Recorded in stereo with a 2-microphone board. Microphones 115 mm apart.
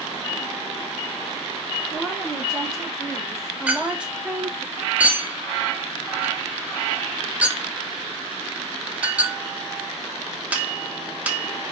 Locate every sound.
1.9 s a woman speaking: centre (ahead or behind), 3 m; by 4.7 s 25° right (ahead or behind), 0.6 m
3.7 s a clink: 10° right (ahead or behind), 0.8 m